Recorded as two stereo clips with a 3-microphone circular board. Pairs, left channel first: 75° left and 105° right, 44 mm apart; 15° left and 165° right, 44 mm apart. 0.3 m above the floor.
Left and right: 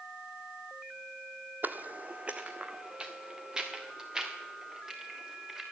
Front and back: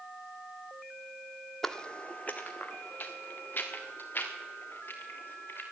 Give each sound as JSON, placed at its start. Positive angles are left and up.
{"t": 1.6, "sound": "footsteps", "azimuth_deg": -65, "distance_m": 0.6}